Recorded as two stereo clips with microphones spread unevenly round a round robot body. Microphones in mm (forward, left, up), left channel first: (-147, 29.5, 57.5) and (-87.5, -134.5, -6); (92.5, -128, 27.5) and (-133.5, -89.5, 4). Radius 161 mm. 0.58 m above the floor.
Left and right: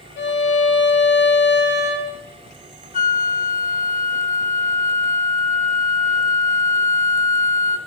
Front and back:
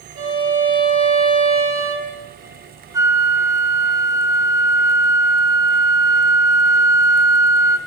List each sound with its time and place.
0.2 s a violin: 120° left, 2.5 m
2.9 s a flute: 130° left, 1.0 m